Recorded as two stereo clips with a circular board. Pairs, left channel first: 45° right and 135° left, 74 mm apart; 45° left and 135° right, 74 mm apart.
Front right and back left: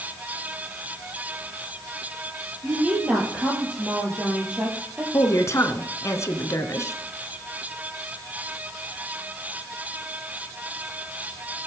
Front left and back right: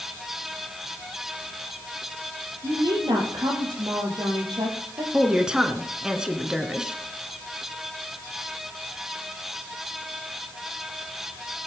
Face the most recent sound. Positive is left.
turn(degrees=-60)